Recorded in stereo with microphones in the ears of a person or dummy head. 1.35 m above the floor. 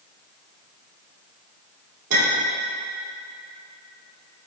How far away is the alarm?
No alarm in this recording.